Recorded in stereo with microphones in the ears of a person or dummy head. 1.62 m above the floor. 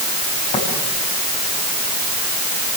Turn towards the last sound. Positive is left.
turn(degrees=25)  # may be behind; listen again after turning